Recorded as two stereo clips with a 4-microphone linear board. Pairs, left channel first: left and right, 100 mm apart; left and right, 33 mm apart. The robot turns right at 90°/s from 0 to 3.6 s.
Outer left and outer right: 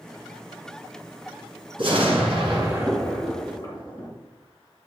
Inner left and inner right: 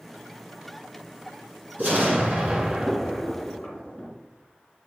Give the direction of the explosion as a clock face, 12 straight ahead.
4 o'clock.